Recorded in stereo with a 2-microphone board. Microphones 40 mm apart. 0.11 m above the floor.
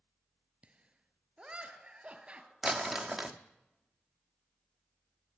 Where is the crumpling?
5° right (ahead or behind), 1.1 m.